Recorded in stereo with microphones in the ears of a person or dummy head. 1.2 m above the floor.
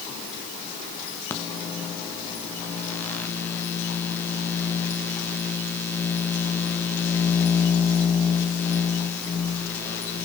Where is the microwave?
15° left (ahead or behind), 1.3 m.